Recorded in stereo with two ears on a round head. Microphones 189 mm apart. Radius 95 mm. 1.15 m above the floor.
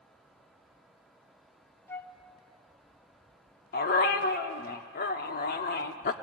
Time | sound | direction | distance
1.9 | a flute | 10° left (ahead or behind) | 0.6 m
3.7 | a dog barking | 45° left (ahead or behind) | 1.1 m